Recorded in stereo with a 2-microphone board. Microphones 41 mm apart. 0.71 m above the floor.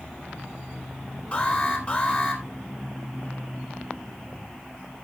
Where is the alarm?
30° left (ahead or behind), 3.5 m.